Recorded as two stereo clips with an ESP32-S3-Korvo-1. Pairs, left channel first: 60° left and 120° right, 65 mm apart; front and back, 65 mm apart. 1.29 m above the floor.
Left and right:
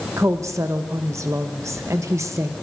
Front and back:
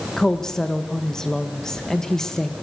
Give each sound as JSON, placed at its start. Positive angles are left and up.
{"t": 0.2, "sound": "a woman speaking", "azimuth_deg": -80, "distance_m": 1.5}